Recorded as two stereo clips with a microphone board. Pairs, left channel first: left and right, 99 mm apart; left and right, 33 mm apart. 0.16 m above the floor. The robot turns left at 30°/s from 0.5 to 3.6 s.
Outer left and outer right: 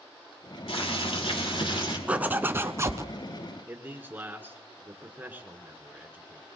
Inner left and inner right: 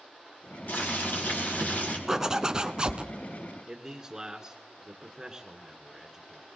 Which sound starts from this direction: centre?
A zipper, at 2.1 s.